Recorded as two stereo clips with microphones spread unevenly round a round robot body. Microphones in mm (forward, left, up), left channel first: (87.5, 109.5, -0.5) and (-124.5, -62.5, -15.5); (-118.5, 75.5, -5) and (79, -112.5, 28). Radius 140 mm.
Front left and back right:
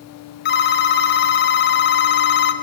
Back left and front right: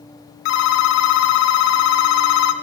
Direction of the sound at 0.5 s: 95° left.